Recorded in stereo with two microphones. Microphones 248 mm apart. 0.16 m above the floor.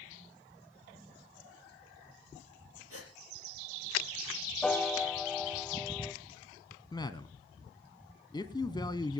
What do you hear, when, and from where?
2.9 s a gasp: 70° right (ahead or behind), 3.5 m
4.6 s a piano: centre (ahead or behind), 1.7 m
6.9 s a man speaking: 20° left (ahead or behind), 1.0 m